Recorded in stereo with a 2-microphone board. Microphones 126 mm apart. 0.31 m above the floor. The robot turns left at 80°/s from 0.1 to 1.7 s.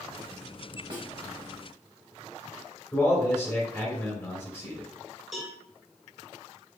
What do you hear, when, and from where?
0.9 s a snare drum: 35° right (ahead or behind), 0.7 m; by 1.1 s 30° right (ahead or behind), 0.7 m
2.9 s a man speaking: 20° left (ahead or behind), 1.6 m
5.3 s a cowbell: centre (ahead or behind), 1.0 m